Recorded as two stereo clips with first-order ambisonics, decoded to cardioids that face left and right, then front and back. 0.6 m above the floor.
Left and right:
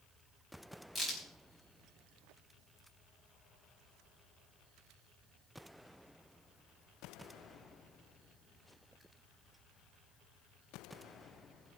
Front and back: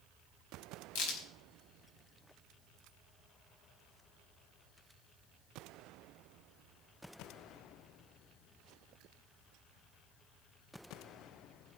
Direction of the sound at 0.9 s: Straight ahead.